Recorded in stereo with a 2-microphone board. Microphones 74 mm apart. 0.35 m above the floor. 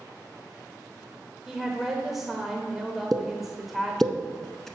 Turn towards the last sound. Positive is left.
turn(degrees=5)  # may be behind; listen again after turning